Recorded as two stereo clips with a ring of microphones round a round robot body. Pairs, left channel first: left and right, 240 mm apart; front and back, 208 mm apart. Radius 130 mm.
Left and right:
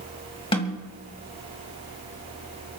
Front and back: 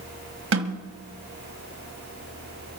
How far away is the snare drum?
About 2 m.